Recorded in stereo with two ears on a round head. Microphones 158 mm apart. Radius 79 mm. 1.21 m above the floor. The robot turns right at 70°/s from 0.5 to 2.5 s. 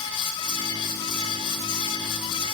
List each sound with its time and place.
Only background noise.